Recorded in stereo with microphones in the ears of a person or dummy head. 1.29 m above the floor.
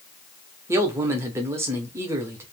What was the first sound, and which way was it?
A man speaking, 15° right (ahead or behind).